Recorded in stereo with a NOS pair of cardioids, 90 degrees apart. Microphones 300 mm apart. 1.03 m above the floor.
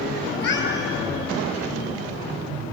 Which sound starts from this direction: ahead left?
A cat meowing, at 0.3 s.